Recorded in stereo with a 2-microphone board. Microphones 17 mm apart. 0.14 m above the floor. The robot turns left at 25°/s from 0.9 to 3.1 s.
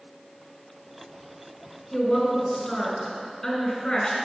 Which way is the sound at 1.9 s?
25° left (ahead or behind).